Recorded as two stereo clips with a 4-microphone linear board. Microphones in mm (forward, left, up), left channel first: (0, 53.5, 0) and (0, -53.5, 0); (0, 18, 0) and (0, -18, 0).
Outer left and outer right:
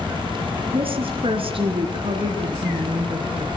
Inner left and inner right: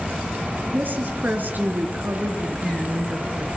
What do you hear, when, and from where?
0.7 s a woman speaking: 55° right (ahead or behind), 4 m